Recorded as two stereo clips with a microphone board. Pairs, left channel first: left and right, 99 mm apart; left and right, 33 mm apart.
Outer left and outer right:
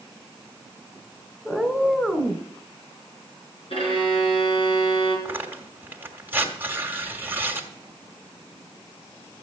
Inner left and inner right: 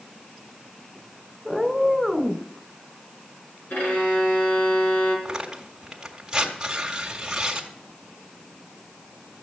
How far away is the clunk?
No clunk in this recording.